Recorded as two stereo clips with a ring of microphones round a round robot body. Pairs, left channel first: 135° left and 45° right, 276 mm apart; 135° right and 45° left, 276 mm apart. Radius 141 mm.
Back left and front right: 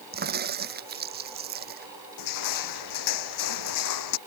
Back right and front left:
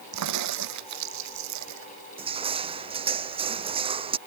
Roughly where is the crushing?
Behind left.